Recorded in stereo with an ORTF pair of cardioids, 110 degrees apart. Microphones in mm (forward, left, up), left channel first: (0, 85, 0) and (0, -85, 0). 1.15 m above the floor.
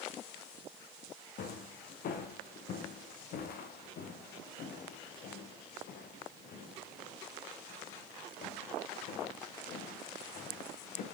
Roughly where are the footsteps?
Ahead left.